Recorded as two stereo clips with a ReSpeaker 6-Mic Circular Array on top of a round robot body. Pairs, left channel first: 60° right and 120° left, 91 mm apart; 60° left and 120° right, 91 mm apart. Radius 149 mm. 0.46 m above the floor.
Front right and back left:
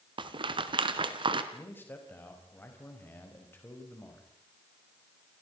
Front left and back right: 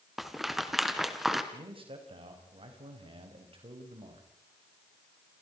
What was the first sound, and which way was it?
A rattle, 155° left.